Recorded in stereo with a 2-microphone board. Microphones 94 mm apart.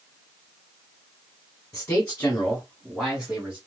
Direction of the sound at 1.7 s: 30° left (ahead or behind).